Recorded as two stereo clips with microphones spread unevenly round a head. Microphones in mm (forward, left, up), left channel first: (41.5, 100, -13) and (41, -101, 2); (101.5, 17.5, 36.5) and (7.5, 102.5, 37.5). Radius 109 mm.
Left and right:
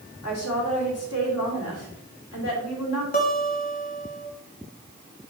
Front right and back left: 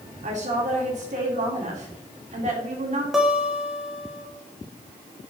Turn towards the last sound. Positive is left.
turn(degrees=50)